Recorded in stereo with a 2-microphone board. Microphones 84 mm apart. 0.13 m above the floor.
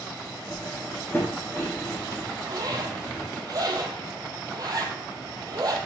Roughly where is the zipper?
Right.